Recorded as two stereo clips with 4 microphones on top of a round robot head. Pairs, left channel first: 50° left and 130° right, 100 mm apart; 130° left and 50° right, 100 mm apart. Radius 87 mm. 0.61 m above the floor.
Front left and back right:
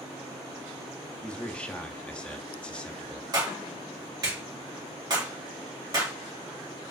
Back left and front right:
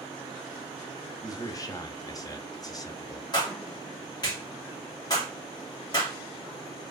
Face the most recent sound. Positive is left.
turn(degrees=180)